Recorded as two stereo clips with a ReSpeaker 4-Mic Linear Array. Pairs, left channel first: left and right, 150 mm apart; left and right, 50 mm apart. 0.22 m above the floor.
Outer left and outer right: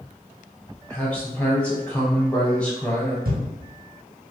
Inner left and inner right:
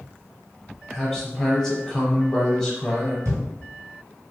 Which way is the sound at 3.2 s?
75° right (ahead or behind).